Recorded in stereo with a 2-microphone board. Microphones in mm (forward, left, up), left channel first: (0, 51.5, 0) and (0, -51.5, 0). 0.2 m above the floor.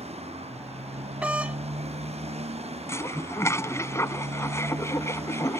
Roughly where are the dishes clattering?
Left.